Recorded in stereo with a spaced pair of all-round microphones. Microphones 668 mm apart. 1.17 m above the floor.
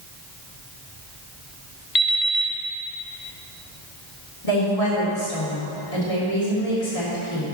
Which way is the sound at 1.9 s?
60° left (ahead or behind).